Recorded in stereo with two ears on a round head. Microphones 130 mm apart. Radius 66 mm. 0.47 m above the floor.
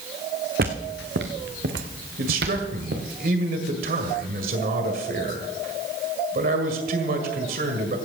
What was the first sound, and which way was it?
Footsteps, 60° right (ahead or behind).